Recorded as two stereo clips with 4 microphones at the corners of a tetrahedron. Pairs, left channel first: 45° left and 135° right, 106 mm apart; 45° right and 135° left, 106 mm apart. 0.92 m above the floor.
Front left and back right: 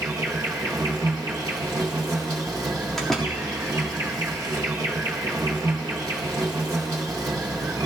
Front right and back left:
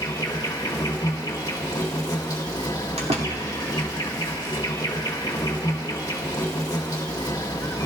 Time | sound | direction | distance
0.0 | an insect | 85° right | 1.8 m
3.0 | a door slam | 130° left | 1.7 m